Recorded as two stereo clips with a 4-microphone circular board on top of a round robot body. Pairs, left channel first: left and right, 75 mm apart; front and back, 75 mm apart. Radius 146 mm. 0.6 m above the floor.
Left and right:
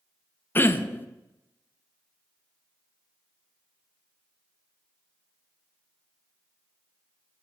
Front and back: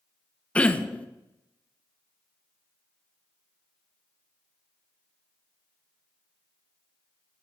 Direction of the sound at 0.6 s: 60° left.